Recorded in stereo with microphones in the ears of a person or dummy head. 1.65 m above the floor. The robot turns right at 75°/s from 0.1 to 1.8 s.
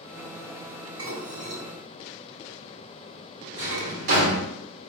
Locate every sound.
1.0 s dishes clattering: 20° right (ahead or behind), 1.8 m; by 3.9 s 65° right (ahead or behind), 1.8 m
3.6 s a drawer: 60° right (ahead or behind), 1.7 m